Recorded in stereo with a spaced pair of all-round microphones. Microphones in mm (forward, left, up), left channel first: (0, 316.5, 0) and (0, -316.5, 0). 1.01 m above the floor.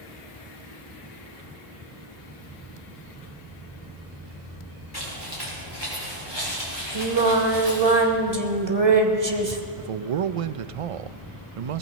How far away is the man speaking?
About 0.5 m.